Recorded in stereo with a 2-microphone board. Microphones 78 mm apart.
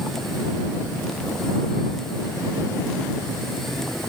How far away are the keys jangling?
I don't hear keys jangling.